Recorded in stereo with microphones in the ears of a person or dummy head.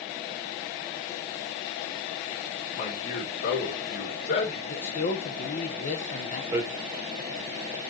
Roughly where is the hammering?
Centre.